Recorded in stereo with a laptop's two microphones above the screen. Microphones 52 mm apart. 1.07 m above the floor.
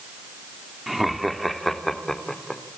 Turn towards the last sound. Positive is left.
turn(degrees=10)  # may be behind; listen again after turning